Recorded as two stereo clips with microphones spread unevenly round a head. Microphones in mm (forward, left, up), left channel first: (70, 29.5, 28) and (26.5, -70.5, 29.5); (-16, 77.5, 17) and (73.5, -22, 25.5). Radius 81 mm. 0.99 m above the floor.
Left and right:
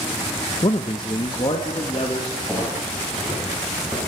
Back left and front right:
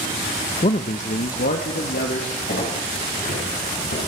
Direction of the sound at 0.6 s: 105° left.